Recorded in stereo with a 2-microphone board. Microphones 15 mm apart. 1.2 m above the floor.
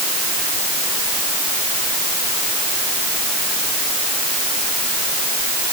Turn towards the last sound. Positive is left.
No sound to turn to.